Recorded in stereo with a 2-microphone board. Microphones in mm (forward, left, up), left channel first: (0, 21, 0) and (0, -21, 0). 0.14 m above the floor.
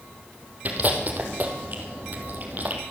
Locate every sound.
0.7 s chewing: 45° right (ahead or behind), 2.5 m